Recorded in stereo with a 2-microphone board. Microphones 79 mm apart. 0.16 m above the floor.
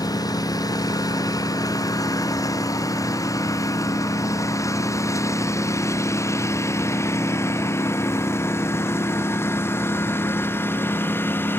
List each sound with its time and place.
0.0 s a lawn mower: 55° left (ahead or behind); by 11.6 s 30° left (ahead or behind)